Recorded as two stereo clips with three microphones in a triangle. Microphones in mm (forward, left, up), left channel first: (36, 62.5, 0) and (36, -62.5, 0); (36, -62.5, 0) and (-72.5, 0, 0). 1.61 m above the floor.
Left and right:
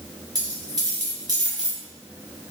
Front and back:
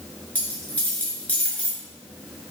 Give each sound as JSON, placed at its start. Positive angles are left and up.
{"t": 0.3, "sound": "a dropped coin", "azimuth_deg": -100, "distance_m": 1.8}